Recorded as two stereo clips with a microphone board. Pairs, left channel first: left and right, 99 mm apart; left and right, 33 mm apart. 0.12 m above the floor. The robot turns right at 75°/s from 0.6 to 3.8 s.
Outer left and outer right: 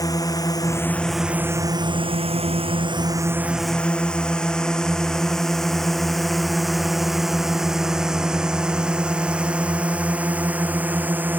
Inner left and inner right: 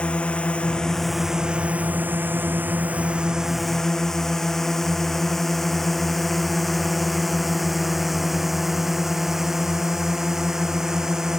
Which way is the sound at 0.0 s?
35° left (ahead or behind).